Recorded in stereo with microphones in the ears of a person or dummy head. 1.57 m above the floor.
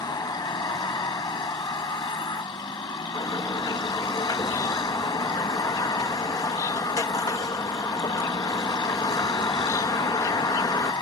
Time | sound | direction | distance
0.0 | a vehicle | 25° left (ahead or behind) | ?
3.1 | a bird | 15° left (ahead or behind) | ?